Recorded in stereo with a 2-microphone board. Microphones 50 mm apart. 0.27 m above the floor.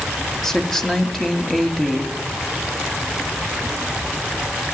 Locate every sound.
0.4 s a woman speaking: 5° left (ahead or behind), 1.7 m